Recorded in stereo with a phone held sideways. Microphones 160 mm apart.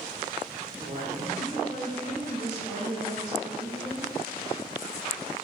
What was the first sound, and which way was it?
A woman speaking, 55° right (ahead or behind).